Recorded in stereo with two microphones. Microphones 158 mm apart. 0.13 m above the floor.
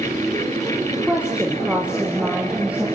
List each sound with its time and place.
0.9 s a woman speaking: 5° right (ahead or behind), 4 m